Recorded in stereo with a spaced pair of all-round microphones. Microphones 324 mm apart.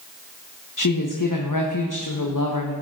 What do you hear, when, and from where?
0.8 s a woman speaking: 70° left (ahead or behind), 1.1 m